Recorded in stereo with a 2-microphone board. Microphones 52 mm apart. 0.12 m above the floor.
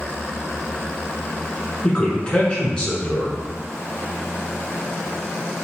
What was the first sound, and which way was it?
A man speaking, 20° left (ahead or behind).